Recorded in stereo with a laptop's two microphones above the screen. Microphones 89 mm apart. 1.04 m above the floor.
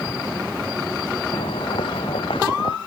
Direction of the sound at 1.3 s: 85° left.